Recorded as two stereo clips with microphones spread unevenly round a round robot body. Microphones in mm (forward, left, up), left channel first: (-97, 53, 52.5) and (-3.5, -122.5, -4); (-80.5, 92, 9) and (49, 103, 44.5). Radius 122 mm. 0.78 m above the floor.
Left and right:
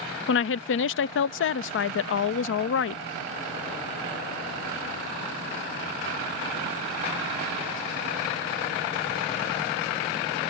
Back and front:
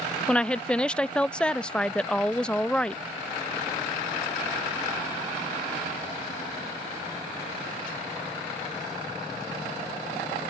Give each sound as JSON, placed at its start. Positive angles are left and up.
{"t": 0.3, "sound": "a woman speaking", "azimuth_deg": 125}